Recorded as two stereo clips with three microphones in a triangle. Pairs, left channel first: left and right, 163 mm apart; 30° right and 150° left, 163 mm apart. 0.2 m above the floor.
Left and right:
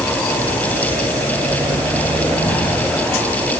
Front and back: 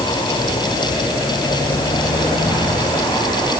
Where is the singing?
No singing in this recording.